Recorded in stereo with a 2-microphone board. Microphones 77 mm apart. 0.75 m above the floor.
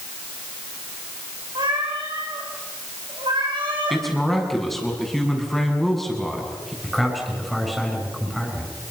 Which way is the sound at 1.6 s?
85° right.